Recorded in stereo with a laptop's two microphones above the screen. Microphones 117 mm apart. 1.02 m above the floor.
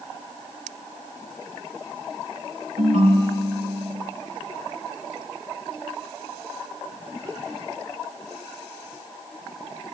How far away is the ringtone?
About 3.5 m.